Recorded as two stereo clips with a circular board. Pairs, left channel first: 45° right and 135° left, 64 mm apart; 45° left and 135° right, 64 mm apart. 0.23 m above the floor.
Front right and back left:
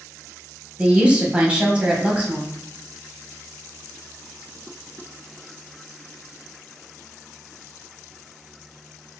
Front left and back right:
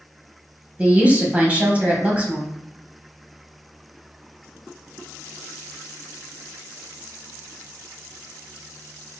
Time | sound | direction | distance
0.8 | a woman speaking | 175° right | 1.0 m